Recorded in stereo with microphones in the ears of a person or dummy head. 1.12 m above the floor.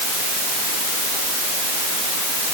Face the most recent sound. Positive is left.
No sound to turn to.